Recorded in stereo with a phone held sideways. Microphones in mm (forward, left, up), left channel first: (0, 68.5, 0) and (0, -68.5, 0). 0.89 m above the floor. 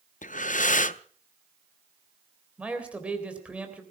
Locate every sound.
0.2 s breathing: 70° left (ahead or behind), 0.5 m
2.6 s a man speaking: 10° right (ahead or behind), 3.5 m